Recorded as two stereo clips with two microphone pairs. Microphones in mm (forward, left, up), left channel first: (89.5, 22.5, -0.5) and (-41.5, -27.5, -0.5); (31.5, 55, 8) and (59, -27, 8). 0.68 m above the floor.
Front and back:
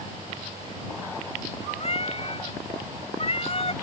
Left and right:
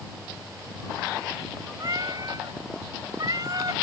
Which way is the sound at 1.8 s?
25° right.